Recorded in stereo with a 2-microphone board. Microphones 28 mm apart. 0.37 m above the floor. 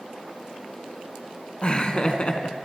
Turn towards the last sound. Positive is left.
turn(degrees=35)  # may be behind; listen again after turning